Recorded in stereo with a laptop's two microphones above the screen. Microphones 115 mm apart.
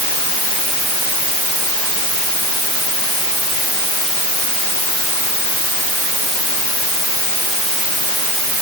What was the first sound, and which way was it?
Only background noise.